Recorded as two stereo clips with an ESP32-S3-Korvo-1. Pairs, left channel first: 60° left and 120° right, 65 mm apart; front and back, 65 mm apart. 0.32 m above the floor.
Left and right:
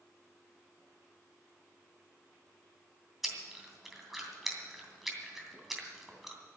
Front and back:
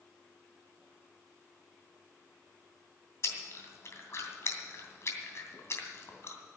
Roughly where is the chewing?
Ahead right.